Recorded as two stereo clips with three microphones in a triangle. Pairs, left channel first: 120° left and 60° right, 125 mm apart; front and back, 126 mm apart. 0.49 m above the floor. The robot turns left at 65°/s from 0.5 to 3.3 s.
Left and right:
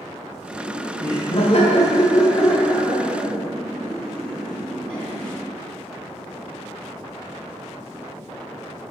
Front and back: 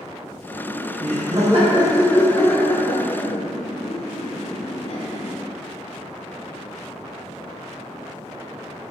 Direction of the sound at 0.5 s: 165° right.